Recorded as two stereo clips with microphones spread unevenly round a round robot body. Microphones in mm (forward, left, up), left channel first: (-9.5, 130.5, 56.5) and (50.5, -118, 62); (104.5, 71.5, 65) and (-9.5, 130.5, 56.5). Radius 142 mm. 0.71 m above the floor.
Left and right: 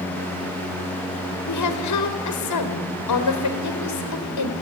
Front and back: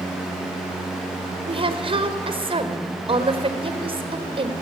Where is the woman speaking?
110° left, 3 m.